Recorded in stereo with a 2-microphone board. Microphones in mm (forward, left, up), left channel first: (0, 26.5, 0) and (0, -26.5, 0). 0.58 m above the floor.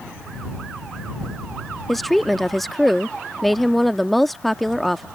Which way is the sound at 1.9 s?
Centre (ahead or behind).